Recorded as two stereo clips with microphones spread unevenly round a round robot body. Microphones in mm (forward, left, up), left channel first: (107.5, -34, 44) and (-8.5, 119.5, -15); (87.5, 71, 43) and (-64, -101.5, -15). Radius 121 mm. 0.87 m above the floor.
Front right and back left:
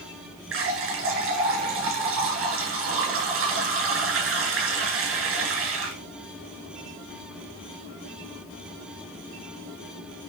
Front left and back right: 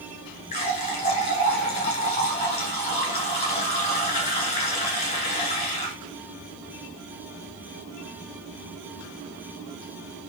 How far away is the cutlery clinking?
No cutlery clinking in this recording.